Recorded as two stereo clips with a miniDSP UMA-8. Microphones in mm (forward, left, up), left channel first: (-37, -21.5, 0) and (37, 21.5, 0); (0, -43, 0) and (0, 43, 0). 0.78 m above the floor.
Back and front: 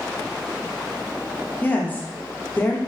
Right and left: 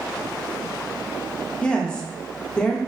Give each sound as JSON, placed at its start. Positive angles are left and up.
{"t": 1.6, "sound": "a woman speaking", "azimuth_deg": -145, "distance_m": 0.6}